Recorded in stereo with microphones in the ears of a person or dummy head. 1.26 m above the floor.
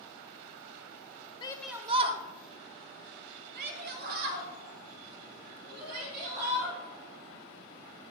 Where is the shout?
15° left (ahead or behind), 0.5 m; by 6.8 s 50° right (ahead or behind), 4.5 m.